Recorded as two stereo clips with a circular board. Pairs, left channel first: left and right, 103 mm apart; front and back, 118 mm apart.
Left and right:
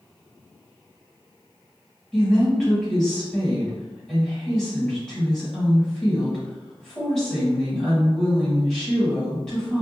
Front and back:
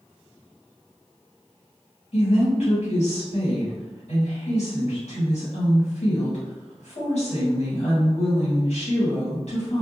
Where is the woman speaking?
5° left, 1.4 m.